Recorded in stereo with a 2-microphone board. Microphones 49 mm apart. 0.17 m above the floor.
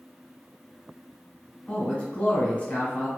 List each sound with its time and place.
1.7 s a man speaking: 25° left (ahead or behind), 1.2 m